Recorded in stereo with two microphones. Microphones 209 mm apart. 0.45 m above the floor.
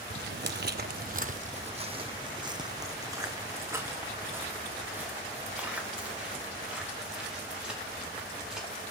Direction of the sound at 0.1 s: 50° right (ahead or behind).